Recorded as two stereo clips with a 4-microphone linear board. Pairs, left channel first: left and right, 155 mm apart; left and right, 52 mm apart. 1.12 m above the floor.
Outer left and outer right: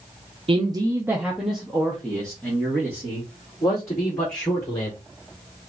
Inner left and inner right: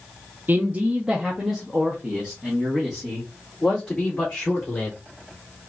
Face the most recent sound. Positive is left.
turn(degrees=20)  # may be behind; listen again after turning